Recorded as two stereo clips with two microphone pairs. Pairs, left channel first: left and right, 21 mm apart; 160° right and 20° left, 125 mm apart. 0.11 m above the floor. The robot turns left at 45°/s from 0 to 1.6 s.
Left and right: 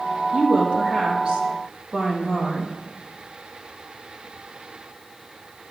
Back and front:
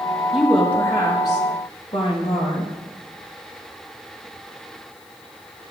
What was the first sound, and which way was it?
A woman speaking, 65° right.